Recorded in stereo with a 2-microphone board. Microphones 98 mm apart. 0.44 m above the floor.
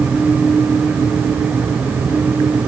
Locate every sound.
Only background noise.